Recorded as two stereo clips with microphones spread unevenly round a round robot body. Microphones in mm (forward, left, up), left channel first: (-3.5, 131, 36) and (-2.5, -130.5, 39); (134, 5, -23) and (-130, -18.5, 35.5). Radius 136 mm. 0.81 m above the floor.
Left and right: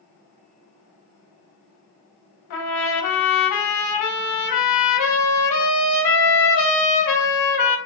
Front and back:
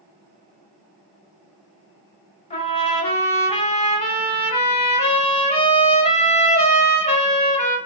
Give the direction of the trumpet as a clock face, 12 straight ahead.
9 o'clock.